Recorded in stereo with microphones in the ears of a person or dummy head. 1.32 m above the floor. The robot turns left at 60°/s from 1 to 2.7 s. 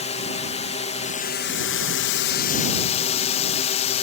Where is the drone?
145° left; by 4.0 s 40° left.